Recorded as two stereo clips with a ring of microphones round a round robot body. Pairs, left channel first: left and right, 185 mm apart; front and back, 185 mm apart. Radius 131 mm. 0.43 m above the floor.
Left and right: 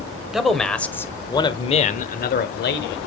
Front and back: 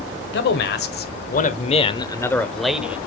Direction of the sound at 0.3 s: Straight ahead.